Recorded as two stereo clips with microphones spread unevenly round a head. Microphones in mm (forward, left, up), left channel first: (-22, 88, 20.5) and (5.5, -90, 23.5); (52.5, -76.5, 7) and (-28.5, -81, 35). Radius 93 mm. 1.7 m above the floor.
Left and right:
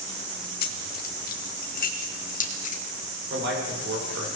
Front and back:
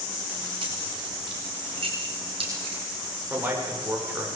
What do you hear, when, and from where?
0.6 s keys jangling: 135° left, 2.5 m; by 2.8 s 145° left, 3.5 m
3.3 s a man speaking: 110° right, 8 m